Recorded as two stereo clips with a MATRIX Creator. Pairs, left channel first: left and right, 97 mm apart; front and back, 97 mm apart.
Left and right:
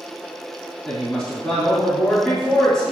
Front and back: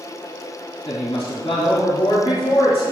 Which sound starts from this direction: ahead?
A woman speaking, at 0.8 s.